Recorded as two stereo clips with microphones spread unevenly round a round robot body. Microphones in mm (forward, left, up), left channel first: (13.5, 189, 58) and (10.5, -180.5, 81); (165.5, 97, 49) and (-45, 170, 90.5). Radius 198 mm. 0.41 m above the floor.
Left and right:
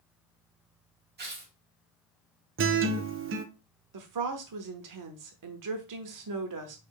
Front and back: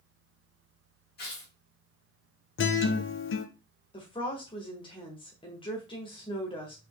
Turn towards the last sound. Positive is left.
turn(degrees=-70)